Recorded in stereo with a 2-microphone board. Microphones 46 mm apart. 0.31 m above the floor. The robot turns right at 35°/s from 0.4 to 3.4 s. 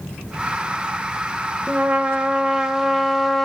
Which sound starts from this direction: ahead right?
A trumpet, at 1.7 s.